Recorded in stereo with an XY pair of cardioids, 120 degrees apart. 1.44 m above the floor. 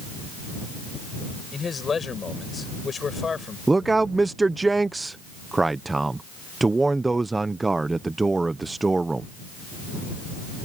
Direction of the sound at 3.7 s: 15° right.